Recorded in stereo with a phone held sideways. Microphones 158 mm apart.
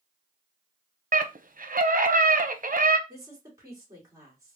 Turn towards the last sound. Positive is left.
turn(degrees=-20)  # may be behind; listen again after turning